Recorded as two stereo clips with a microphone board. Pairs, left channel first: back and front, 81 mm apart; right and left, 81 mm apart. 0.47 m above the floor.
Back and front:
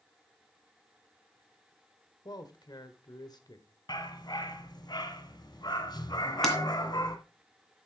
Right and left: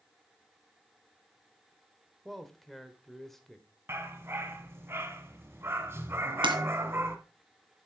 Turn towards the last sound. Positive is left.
turn(degrees=90)